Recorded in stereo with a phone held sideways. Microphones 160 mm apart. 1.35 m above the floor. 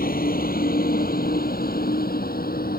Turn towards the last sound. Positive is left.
turn(degrees=80)